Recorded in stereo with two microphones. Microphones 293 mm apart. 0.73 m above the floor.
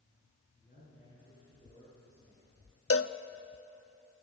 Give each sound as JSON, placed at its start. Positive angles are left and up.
{"t": 0.6, "sound": "a man speaking", "side_deg": 30, "distance_m": 8.5}
{"t": 2.9, "sound": "a cowbell", "side_deg": 50, "distance_m": 0.6}